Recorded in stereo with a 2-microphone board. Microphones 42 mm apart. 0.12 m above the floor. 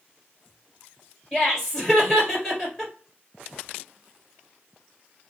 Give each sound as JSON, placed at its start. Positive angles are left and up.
{"t": 1.3, "sound": "laughter", "side_deg": 10, "distance_m": 1.9}